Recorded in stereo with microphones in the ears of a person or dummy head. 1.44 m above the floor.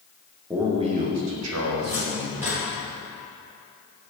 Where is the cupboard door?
10° right (ahead or behind), 1.2 m.